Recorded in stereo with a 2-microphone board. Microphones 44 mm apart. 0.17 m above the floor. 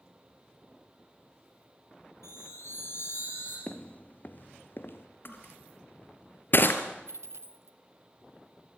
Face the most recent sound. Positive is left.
turn(degrees=-85)